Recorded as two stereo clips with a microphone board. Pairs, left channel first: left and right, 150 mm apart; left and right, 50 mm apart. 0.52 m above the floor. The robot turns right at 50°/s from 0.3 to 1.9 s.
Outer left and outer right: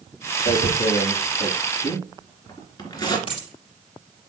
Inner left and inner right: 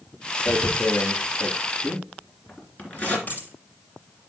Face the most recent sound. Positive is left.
turn(degrees=35)  # may be behind; listen again after turning